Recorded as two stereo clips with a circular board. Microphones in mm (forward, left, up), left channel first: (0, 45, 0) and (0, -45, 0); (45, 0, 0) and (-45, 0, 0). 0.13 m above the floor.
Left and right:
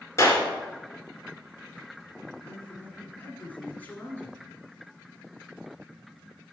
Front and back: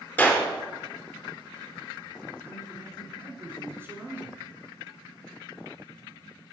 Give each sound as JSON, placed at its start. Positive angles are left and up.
{"t": 0.2, "sound": "a clap", "azimuth_deg": 55, "distance_m": 1.7}
{"t": 2.4, "sound": "a man speaking", "azimuth_deg": 145, "distance_m": 1.7}